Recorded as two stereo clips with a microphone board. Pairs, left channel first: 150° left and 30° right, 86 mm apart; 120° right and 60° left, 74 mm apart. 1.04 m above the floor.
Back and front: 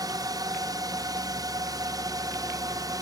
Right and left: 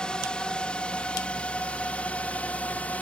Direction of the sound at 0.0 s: 45° right.